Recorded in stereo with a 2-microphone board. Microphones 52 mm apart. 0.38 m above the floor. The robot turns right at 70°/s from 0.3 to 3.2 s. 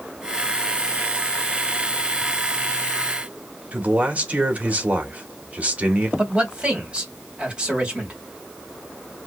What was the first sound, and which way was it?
A man speaking, 30° right (ahead or behind).